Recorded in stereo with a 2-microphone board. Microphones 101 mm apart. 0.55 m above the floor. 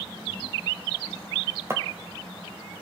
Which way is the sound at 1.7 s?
25° right (ahead or behind).